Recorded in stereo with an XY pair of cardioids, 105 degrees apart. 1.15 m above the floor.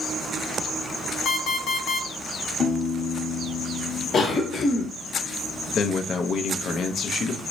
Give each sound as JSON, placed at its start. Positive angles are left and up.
{"t": 1.2, "sound": "an alarm clock", "azimuth_deg": 65, "distance_m": 1.0}
{"t": 2.6, "sound": "a piano", "azimuth_deg": 40, "distance_m": 1.3}
{"t": 4.1, "sound": "a cough", "azimuth_deg": 55, "distance_m": 1.1}
{"t": 5.7, "sound": "a man speaking", "azimuth_deg": 60, "distance_m": 0.7}